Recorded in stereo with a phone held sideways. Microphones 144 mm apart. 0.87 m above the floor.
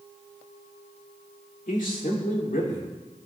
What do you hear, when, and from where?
1.7 s a man speaking: 70° left (ahead or behind), 2.5 m; by 2.9 s 75° left (ahead or behind), 3.5 m